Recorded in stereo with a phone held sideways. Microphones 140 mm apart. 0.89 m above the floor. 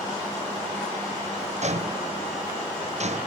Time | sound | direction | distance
1.6 | footsteps | 55° right (ahead or behind) | ?